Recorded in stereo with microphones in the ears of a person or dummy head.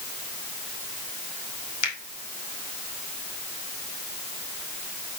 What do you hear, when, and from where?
1.8 s a finger snap: 65° left (ahead or behind), 2.5 m